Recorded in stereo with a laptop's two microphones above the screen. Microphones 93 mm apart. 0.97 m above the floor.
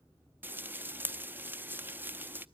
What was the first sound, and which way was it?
Frying, 20° right (ahead or behind).